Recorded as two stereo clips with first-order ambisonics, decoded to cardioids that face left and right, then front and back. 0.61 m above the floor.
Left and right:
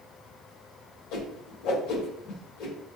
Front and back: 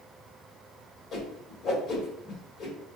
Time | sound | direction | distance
1.1 | a whoosh | 60° left | 1.6 m